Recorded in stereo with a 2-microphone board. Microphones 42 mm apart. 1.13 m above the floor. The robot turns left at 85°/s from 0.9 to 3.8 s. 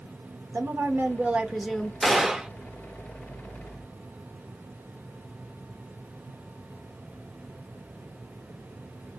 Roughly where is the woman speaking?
Right.